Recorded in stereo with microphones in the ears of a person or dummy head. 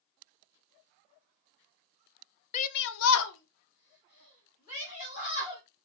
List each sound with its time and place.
2.5 s a shout: 35° left (ahead or behind), 0.5 m; by 5.6 s 45° left (ahead or behind), 2.5 m